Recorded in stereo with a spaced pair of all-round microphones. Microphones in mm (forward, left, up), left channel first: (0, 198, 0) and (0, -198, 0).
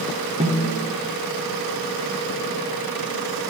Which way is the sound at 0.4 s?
20° right (ahead or behind).